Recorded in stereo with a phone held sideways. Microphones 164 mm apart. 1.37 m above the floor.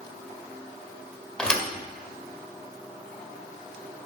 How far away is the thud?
About 1.7 m.